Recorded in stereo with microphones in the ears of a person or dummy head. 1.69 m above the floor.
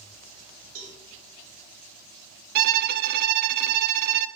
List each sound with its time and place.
0.8 s a cowbell: 80° right, 3.5 m
2.5 s a violin: 55° right (ahead or behind), 0.6 m